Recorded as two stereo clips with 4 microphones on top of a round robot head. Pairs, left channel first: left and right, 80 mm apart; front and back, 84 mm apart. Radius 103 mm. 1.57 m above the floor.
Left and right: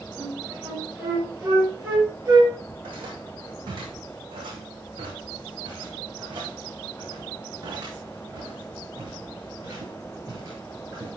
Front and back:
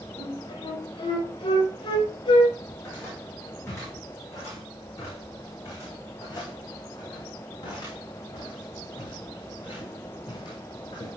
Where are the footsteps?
70° right, 6.5 m; by 11.1 s 35° right, 9.5 m.